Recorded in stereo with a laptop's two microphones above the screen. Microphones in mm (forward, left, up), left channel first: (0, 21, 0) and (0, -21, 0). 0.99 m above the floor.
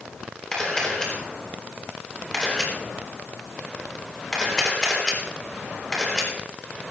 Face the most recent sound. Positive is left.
turn(degrees=15)  # may be behind; listen again after turning